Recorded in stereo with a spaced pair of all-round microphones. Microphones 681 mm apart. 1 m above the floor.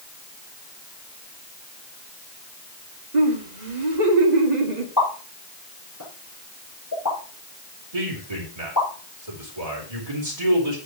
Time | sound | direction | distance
3.1 | laughter | 80° right | 2.5 m
5.0 | a pop | 25° left (ahead or behind) | 5.5 m
7.9 | a man speaking | 60° right (ahead or behind) | 3.5 m